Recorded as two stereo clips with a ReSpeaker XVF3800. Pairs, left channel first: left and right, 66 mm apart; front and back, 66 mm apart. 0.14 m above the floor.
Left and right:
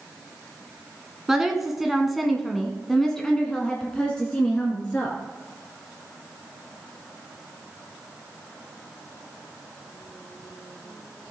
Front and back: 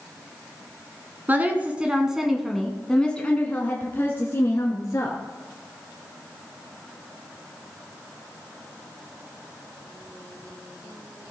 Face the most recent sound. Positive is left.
turn(degrees=20)